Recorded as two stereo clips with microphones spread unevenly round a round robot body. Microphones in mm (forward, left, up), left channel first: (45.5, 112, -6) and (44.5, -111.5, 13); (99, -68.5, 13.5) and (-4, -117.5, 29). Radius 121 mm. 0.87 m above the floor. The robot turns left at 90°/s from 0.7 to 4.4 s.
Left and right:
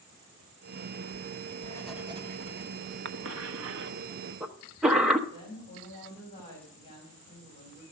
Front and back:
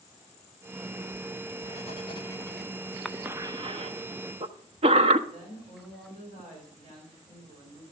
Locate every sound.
1.1 s writing: 70° left, 1.8 m; by 3.0 s 95° right, 1.8 m
3.0 s a cough: 60° right, 0.8 m; by 5.2 s straight behind, 0.8 m
5.3 s a woman speaking: 160° left, 5 m